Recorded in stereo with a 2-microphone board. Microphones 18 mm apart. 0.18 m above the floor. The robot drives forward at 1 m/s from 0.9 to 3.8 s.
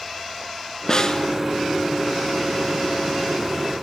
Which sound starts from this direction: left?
A snare drum, at 0.9 s.